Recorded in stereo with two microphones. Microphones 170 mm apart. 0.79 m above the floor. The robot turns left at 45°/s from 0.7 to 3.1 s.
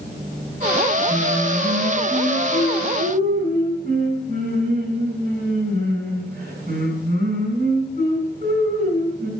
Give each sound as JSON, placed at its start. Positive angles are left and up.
{"t": 1.1, "sound": "singing", "azimuth_deg": -40, "distance_m": 7.0}